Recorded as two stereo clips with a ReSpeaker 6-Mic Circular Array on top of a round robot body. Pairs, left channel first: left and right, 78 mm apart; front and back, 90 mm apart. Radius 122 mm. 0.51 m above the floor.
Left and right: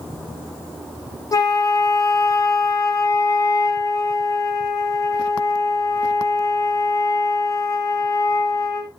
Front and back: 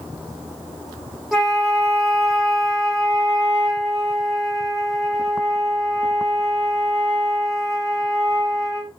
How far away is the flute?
About 1.1 m.